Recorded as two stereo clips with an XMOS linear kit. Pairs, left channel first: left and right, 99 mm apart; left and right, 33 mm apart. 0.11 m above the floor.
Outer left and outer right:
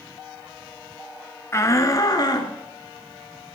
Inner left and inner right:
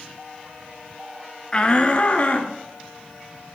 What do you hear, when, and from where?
1.5 s a shout: 25° left (ahead or behind), 1.4 m; by 2.5 s 40° left (ahead or behind), 1.7 m